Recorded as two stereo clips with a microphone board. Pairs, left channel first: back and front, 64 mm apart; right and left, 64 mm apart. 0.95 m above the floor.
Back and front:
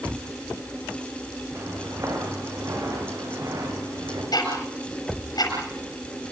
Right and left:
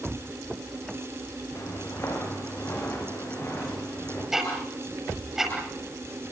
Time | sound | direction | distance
1.6 | footsteps | 45° right | 8.5 m
4.3 | ticking | 175° left | 7 m